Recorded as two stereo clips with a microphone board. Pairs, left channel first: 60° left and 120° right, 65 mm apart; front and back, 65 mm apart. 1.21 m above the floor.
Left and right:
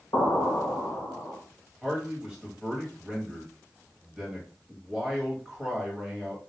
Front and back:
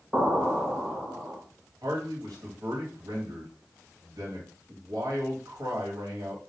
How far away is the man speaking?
About 1.2 m.